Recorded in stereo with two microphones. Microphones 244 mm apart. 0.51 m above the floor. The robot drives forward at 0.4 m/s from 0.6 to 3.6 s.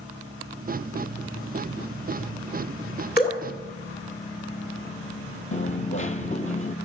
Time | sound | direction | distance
3.2 | dripping | 40° left (ahead or behind) | 2.0 m
5.5 | a dropped coin | 30° left (ahead or behind) | 0.6 m